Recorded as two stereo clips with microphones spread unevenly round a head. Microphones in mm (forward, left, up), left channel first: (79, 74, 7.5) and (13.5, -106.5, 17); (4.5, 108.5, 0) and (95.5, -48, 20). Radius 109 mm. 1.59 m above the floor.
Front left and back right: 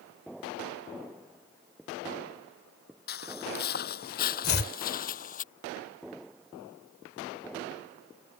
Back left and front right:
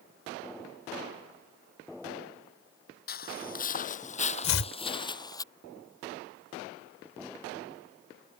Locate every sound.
3.1 s footsteps: 100° left; by 5.4 s 50° left
4.4 s chopping: 120° left